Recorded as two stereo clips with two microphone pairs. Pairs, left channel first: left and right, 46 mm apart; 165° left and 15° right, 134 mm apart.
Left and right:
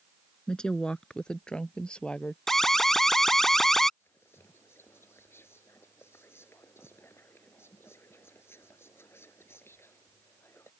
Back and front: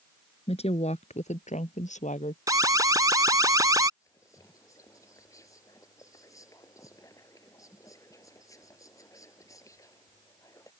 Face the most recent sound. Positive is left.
turn(degrees=105)